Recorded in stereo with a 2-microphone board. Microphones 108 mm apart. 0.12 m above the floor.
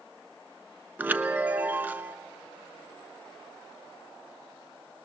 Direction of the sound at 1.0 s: 15° right (ahead or behind).